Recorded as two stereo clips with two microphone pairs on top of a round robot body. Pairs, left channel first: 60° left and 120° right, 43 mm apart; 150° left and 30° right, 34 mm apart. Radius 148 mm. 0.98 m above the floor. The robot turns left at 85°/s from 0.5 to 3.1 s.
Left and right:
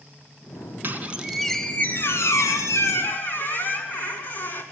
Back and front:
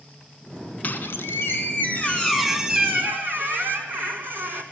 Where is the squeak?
165° right, 2 m; by 4.6 s 5° left, 2 m.